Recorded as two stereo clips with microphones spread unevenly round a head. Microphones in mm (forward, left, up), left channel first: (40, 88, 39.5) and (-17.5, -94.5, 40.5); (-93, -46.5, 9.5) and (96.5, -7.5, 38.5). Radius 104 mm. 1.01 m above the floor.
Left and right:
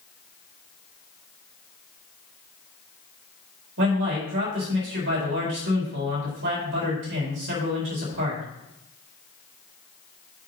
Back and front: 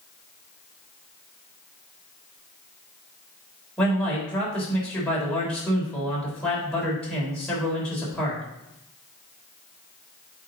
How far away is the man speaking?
About 4 m.